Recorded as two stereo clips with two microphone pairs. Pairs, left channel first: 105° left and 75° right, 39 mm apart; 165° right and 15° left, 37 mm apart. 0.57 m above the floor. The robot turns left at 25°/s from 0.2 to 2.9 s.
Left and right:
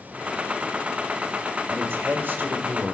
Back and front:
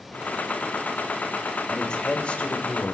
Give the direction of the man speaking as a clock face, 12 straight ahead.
3 o'clock.